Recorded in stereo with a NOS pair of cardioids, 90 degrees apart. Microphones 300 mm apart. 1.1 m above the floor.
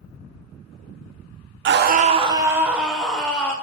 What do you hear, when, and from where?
1.6 s a scream: 40° right, 0.6 m; by 3.5 s 5° left, 1.5 m